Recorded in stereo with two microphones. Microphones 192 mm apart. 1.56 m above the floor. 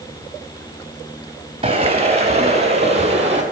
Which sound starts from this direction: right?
Footsteps, at 1.6 s.